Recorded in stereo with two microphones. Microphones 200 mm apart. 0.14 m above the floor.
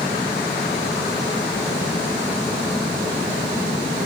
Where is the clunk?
I don't hear a clunk.